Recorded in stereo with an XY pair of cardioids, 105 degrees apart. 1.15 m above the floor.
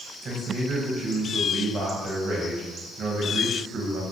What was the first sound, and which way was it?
A man speaking, 50° right.